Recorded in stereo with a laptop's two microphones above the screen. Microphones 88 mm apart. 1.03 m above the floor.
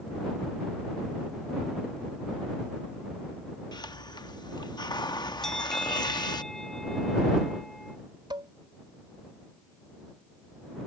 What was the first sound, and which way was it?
A hiss, 55° left (ahead or behind).